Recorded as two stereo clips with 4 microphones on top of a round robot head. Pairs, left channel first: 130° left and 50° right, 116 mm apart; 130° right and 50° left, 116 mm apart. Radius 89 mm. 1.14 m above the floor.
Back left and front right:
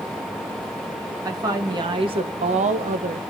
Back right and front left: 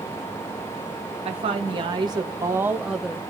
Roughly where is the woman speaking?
Ahead.